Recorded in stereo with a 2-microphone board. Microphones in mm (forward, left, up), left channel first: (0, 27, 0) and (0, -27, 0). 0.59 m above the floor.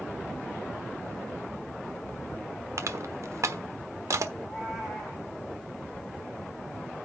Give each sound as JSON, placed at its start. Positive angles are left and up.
{"t": 2.8, "sound": "crushing", "side_deg": -65, "distance_m": 1.2}
{"t": 4.4, "sound": "a cat meowing", "side_deg": 0, "distance_m": 8.0}